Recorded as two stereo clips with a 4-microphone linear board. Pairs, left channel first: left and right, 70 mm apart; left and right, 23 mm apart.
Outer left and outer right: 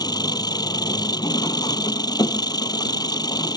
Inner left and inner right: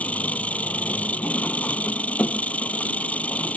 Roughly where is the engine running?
Left.